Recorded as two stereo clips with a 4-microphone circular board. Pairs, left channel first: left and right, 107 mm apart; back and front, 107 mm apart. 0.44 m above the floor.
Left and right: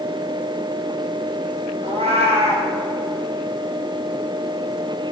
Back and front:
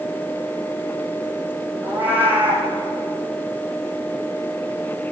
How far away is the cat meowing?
About 3 m.